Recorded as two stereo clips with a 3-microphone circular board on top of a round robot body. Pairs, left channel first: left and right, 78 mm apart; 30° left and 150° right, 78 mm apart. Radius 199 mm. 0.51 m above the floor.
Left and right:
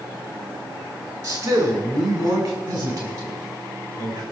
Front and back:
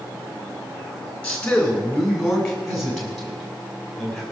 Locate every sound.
1.2 s a man speaking: 50° right, 4 m; by 4.2 s 60° right, 6 m